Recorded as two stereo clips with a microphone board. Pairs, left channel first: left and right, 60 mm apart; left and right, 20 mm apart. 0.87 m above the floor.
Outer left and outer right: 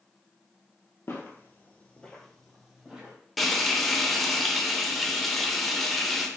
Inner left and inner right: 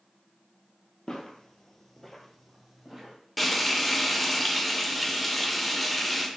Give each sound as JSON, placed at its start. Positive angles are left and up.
{"t": 1.1, "sound": "footsteps", "side_deg": 45, "distance_m": 1.2}
{"t": 3.4, "sound": "frying", "side_deg": 5, "distance_m": 0.6}